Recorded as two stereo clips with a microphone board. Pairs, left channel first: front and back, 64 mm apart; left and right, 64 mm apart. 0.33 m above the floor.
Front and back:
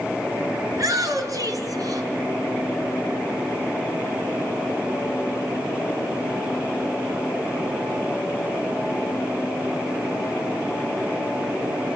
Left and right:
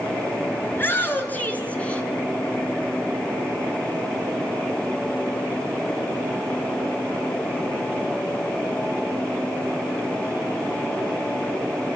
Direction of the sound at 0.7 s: 145° left.